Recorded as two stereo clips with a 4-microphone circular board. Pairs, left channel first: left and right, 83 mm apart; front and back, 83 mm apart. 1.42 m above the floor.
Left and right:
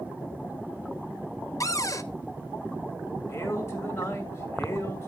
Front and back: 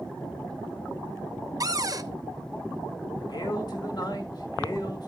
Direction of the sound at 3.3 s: 35° left.